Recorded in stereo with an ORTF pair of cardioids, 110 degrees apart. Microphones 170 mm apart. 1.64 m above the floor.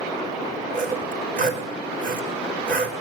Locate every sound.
0.7 s sawing: 60° right, 5 m